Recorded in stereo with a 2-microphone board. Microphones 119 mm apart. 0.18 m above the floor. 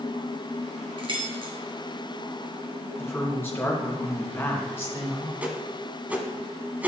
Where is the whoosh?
15° right (ahead or behind), 1.2 m.